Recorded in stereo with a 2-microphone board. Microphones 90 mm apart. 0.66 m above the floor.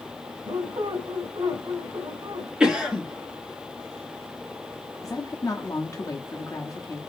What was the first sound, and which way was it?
A squeak, 70° right (ahead or behind).